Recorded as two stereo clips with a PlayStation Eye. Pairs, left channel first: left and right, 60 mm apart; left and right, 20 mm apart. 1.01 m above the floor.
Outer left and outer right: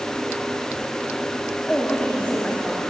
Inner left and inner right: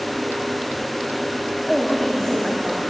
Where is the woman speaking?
20° left (ahead or behind), 2.5 m; by 2.8 s 25° left (ahead or behind), 4 m.